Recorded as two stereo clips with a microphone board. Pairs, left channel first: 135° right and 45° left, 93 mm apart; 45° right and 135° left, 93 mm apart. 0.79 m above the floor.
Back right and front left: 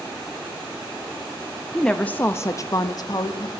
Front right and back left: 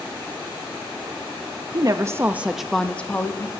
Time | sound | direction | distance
1.7 | a woman speaking | 140° left | 0.6 m